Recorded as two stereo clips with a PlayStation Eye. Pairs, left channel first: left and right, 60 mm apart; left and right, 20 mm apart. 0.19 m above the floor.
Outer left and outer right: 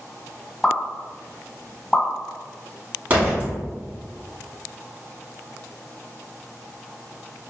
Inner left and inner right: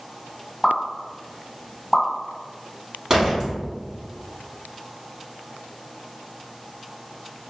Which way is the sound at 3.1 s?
30° right (ahead or behind).